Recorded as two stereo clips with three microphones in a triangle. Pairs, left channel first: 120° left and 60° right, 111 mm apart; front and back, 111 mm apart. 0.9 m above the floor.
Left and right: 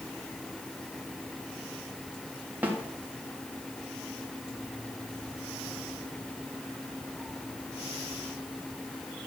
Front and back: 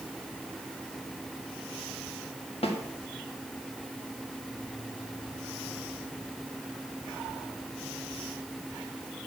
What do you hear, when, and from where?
2.6 s a snare drum: 10° left, 1.6 m